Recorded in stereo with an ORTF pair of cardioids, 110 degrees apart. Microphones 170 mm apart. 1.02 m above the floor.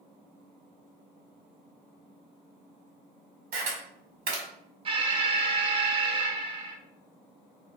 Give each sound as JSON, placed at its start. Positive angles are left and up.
{"t": 3.5, "sound": "a camera shutter", "azimuth_deg": -70, "distance_m": 1.3}
{"t": 4.8, "sound": "an alarm", "azimuth_deg": -30, "distance_m": 0.5}